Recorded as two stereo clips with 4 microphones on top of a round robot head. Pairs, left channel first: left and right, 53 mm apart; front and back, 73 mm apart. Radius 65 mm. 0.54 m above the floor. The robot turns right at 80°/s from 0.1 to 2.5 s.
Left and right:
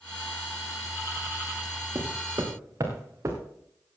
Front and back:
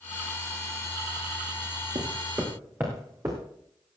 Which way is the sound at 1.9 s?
140° right.